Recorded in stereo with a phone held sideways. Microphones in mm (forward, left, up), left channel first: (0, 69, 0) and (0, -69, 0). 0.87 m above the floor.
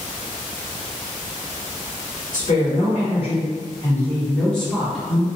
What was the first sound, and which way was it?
A woman speaking, 65° left (ahead or behind).